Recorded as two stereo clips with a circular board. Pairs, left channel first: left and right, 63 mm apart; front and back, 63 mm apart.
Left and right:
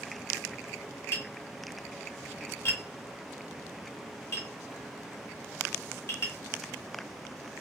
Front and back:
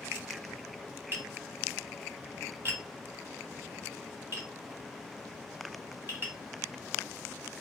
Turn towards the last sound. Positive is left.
turn(degrees=130)